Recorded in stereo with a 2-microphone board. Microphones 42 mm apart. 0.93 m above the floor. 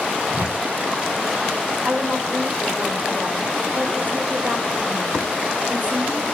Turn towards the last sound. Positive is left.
turn(degrees=-45)  # may be behind; listen again after turning